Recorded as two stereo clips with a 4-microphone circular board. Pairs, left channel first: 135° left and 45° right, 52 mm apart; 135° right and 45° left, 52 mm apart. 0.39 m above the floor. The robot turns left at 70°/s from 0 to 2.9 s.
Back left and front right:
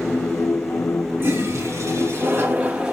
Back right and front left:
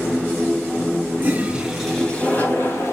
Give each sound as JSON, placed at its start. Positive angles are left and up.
{"t": 1.2, "sound": "a toilet flushing", "azimuth_deg": 0, "distance_m": 2.0}